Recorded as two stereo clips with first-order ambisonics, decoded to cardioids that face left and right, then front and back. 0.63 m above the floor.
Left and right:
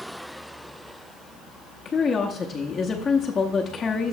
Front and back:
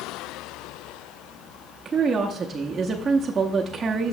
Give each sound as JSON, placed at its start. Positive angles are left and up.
{"t": 1.9, "sound": "a woman speaking", "azimuth_deg": 130, "distance_m": 0.7}